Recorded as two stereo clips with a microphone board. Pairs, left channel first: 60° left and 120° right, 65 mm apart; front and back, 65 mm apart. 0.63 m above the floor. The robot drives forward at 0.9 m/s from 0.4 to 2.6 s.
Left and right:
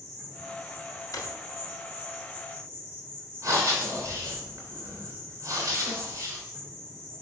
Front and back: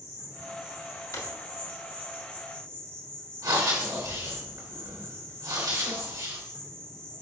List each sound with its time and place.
0.0 s an insect: 35° right, 3.5 m; by 7.2 s 65° right, 2.5 m
1.1 s a drawer: 35° left, 1.0 m; by 1.3 s 40° left, 0.9 m
3.4 s breathing: 155° right, 3 m